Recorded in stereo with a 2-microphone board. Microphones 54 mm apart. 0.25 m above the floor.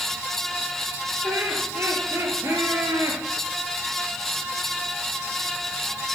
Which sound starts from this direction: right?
Laughter, at 1.2 s.